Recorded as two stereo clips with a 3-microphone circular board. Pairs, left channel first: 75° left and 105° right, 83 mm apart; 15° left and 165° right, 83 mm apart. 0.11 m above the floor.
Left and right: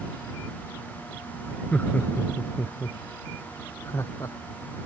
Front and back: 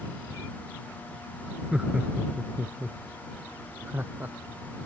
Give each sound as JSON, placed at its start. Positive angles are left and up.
{"t": 1.7, "sound": "laughter", "azimuth_deg": 125}